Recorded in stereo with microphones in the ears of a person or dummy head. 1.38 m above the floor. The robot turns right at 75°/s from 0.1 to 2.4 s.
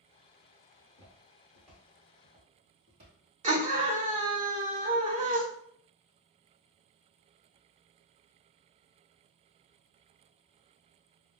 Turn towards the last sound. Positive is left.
turn(degrees=-35)  # may be behind; listen again after turning